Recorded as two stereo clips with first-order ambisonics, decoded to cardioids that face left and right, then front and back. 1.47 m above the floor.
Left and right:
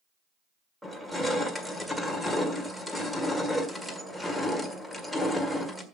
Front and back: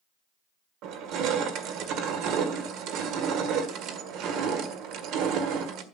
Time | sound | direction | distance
0.8 | crushing | straight behind | 1.6 m